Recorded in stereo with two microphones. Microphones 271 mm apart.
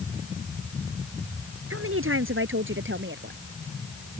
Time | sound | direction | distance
1.7 | a woman speaking | 55° right (ahead or behind) | ?